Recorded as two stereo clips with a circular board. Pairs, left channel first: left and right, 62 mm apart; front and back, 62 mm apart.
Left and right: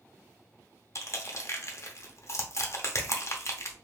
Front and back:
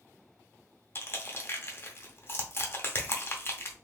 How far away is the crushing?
About 0.5 m.